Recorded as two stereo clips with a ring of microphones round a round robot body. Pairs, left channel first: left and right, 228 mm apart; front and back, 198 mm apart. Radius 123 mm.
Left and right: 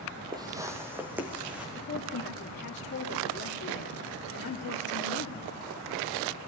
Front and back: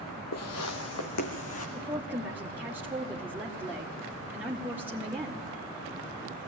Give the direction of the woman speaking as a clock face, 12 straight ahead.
9 o'clock.